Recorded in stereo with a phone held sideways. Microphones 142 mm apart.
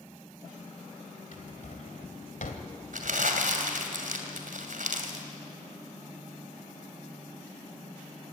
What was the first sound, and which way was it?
A drawer, 65° left (ahead or behind).